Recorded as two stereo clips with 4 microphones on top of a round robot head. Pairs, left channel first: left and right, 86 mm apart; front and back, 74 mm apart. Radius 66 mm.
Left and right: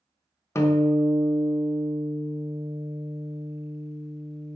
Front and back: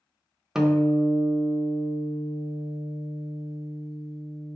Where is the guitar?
100° left, 0.6 m.